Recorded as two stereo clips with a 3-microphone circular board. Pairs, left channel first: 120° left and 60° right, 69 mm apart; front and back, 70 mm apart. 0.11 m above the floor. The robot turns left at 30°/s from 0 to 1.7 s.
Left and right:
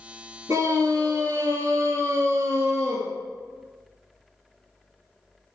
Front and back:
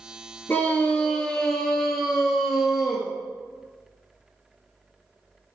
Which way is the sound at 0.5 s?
55° right.